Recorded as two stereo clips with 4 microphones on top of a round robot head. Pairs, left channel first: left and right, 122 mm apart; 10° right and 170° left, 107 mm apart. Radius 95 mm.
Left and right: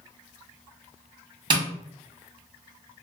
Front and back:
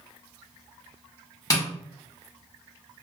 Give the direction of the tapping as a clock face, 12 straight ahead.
2 o'clock.